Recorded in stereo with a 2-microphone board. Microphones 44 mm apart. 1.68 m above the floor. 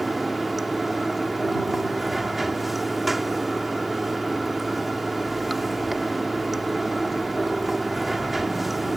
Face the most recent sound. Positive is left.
turn(degrees=-5)  # may be behind; listen again after turning